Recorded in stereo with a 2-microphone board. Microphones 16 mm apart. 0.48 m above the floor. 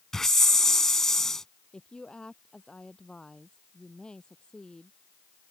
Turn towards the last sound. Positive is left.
turn(degrees=70)  # may be behind; listen again after turning